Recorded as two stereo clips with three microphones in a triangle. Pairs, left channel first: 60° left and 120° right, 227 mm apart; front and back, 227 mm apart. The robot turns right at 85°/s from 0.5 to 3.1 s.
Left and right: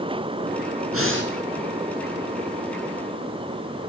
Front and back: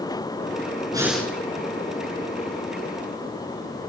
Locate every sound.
0.9 s breathing: 110° right, 6.5 m; by 1.3 s 75° right, 6.5 m